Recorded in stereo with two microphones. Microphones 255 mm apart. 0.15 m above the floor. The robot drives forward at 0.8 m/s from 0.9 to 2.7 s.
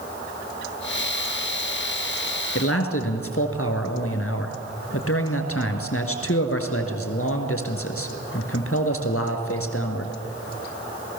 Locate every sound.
2.5 s a man speaking: 60° left (ahead or behind), 2.5 m